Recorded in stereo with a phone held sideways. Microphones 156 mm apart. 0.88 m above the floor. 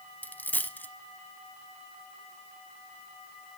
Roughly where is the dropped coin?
Centre.